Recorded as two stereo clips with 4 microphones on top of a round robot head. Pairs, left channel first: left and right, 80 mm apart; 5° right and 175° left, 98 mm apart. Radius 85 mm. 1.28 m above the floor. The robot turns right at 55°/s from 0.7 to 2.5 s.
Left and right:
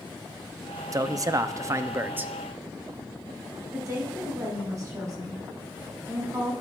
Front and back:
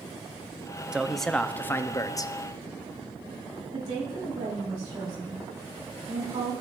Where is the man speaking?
105° right, 0.5 m; by 2.3 s 25° right, 0.5 m.